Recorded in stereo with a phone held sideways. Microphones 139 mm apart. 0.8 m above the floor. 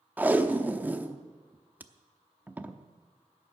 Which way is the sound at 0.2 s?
15° right (ahead or behind).